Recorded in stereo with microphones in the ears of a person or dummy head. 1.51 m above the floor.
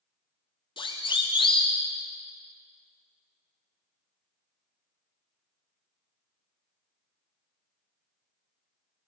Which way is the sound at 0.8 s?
30° left (ahead or behind).